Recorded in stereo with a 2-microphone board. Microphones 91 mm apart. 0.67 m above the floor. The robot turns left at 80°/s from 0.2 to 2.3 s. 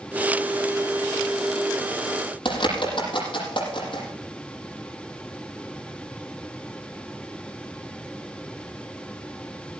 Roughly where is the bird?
Left.